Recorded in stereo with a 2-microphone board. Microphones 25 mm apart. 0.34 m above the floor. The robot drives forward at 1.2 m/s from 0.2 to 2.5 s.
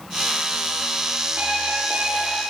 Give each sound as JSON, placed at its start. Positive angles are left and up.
{"t": 1.4, "sound": "an alarm clock", "side_deg": -80, "distance_m": 6.0}